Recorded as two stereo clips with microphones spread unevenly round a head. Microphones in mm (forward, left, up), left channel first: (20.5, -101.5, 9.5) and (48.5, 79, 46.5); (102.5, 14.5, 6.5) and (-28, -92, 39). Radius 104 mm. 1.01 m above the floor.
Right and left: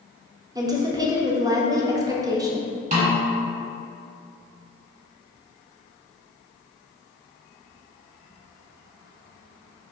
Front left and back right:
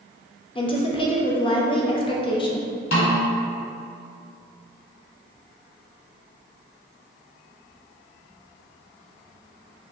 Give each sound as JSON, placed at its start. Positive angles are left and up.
{"t": 0.6, "sound": "a woman speaking", "azimuth_deg": 5, "distance_m": 0.6}
{"t": 2.9, "sound": "a snare drum", "azimuth_deg": 50, "distance_m": 1.2}